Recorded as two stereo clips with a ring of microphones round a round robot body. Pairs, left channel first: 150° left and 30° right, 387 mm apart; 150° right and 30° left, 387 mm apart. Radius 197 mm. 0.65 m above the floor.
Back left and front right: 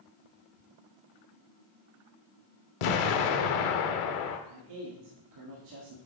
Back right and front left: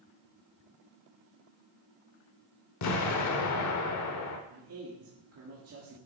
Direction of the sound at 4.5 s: 15° right.